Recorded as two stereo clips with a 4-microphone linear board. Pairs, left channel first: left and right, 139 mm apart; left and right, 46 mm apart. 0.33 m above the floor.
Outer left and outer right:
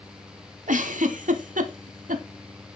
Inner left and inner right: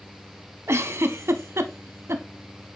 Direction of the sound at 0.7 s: 70° right (ahead or behind).